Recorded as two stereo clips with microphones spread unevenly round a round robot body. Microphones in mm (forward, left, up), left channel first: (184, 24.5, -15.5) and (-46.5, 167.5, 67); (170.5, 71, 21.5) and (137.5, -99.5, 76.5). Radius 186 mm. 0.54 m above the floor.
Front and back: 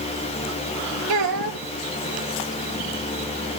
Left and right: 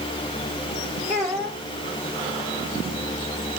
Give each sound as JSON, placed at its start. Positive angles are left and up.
{"t": 1.1, "sound": "a child speaking", "azimuth_deg": 180, "distance_m": 1.5}